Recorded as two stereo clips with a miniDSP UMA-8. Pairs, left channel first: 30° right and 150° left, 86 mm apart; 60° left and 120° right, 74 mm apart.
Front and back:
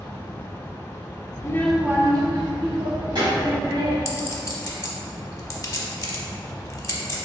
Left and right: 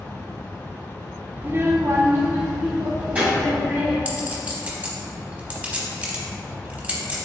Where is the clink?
60° right, 0.8 m.